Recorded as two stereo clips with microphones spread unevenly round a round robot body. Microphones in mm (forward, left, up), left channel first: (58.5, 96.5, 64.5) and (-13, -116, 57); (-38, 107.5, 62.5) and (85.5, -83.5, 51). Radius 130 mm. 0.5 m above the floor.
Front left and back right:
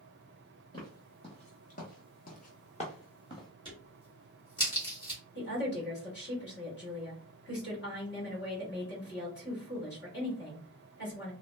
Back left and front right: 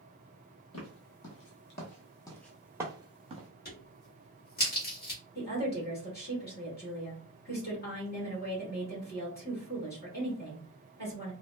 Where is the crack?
130° left, 1.5 m.